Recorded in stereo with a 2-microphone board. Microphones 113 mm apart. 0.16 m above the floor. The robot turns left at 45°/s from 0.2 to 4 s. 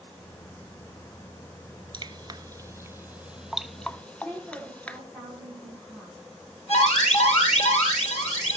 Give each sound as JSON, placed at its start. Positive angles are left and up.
{"t": 1.9, "sound": "dripping", "side_deg": -40, "distance_m": 0.5}
{"t": 4.1, "sound": "a woman speaking", "side_deg": 5, "distance_m": 9.5}
{"t": 6.7, "sound": "an alarm", "side_deg": 75, "distance_m": 7.0}